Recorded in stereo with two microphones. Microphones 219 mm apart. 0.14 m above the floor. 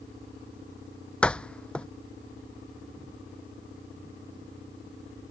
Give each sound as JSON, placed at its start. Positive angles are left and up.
{"t": 1.2, "sound": "a door slam", "side_deg": 5}